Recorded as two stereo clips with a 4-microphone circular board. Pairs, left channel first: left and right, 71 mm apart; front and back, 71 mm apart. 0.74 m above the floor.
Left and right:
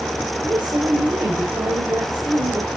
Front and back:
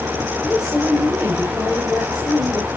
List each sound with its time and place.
0.4 s a woman speaking: 100° right, 4 m